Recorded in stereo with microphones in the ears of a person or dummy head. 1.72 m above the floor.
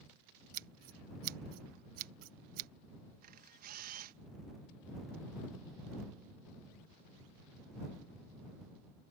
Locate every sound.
0.5 s scissors: 50° right (ahead or behind)
3.2 s a camera shutter: 55° right (ahead or behind)